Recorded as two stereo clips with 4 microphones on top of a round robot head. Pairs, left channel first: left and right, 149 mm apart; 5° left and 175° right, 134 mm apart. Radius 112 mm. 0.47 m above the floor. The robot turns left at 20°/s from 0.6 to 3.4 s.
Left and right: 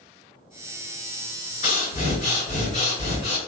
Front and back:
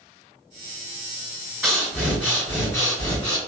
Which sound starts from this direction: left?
Breathing, at 1.6 s.